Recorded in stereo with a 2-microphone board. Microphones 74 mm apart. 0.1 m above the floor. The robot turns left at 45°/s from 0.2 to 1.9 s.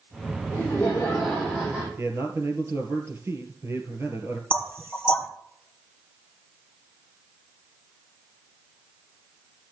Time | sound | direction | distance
0.5 | laughter | 40° left | 5 m
2.0 | a man speaking | 35° right (ahead or behind) | 2 m
4.5 | knocking | 30° right (ahead or behind) | 1.5 m